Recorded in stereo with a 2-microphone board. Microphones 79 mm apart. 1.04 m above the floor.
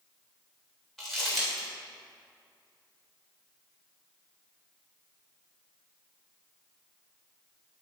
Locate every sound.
1.0 s crumpling: 5° left (ahead or behind), 3 m